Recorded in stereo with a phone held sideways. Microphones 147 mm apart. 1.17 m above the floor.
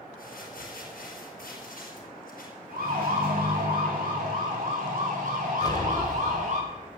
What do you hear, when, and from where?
0.2 s crumpling: 80° left, 5 m
2.7 s a siren: 85° right, 6 m; by 6.6 s 60° right (ahead or behind), 6 m
5.6 s an explosion: 25° left (ahead or behind), 2 m